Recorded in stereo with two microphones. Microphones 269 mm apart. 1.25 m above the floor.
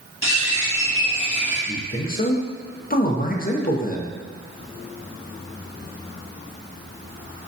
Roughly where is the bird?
Left.